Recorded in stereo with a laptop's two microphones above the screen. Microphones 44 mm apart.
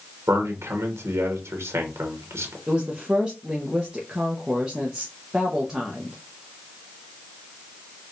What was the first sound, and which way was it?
A man speaking, 80° right.